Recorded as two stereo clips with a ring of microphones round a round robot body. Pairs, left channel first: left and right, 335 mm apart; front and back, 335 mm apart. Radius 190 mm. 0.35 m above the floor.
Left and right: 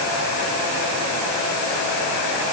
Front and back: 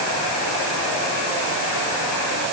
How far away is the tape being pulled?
No tape being pulled in this recording.